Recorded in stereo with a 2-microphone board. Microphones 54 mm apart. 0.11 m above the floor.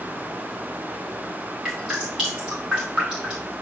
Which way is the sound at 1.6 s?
10° right (ahead or behind).